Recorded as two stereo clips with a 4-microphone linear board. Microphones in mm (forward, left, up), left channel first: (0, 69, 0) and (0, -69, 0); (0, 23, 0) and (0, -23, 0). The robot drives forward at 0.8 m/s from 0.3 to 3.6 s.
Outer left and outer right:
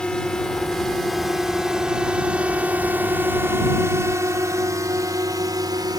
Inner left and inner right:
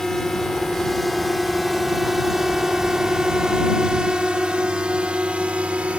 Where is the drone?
5° left (ahead or behind); by 6.0 s 30° right (ahead or behind).